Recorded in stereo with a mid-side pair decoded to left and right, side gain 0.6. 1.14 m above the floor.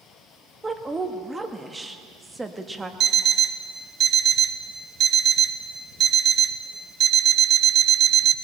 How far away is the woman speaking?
About 1.4 m.